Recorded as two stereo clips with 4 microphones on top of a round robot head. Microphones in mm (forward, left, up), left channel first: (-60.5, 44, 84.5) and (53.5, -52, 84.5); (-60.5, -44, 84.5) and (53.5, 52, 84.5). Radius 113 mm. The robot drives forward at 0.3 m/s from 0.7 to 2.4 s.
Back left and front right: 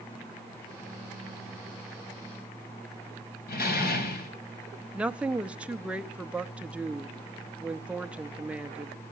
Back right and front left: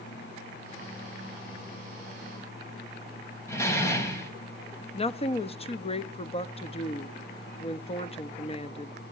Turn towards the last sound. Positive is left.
turn(degrees=-120)